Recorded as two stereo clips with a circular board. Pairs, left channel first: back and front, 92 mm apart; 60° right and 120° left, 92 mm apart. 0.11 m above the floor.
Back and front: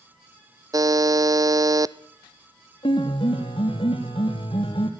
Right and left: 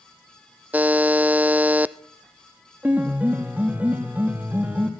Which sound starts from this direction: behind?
A piano, at 2.8 s.